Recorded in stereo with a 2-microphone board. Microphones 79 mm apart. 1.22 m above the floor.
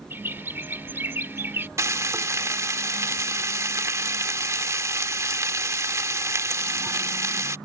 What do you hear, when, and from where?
0.1 s a bird: 30° right (ahead or behind)
1.8 s frying: 40° right (ahead or behind)